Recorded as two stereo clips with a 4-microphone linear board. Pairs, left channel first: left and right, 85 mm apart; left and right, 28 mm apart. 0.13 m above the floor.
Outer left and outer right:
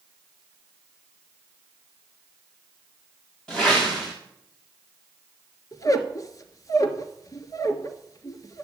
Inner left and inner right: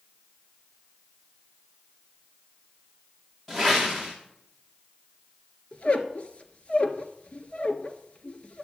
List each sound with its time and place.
3.5 s a whoosh: 10° left (ahead or behind), 5 m
5.7 s a squeak: 40° left (ahead or behind), 1.4 m